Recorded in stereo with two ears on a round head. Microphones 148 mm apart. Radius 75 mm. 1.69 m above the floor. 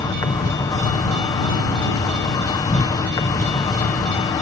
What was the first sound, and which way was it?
An insect, 25° left (ahead or behind).